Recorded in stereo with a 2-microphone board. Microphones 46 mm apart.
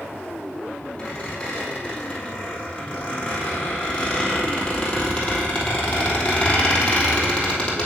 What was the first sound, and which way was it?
A squeak, 25° left (ahead or behind).